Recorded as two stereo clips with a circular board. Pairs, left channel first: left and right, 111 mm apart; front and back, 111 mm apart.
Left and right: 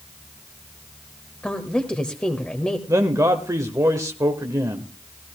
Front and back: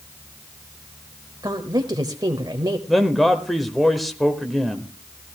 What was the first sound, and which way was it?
A woman speaking, 165° left.